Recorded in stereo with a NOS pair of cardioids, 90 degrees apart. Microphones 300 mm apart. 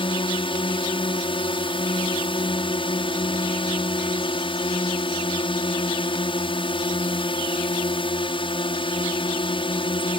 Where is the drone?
20° left.